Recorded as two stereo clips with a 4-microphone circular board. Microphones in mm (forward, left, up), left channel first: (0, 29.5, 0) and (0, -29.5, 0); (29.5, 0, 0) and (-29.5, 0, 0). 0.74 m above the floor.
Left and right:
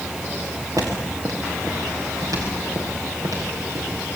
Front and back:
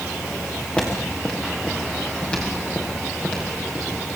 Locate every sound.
0.8 s footsteps: 70° right, 6 m